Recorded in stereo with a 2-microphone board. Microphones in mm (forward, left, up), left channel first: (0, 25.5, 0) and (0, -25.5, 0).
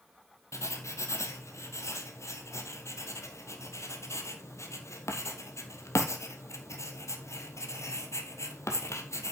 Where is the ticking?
No ticking in this recording.